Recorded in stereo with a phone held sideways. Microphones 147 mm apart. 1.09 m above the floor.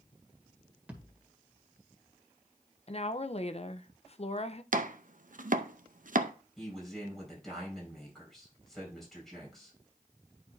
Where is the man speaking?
Centre (ahead or behind), 4.5 m.